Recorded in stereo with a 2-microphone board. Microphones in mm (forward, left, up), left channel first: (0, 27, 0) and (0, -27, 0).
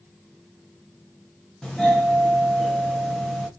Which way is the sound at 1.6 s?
15° left (ahead or behind).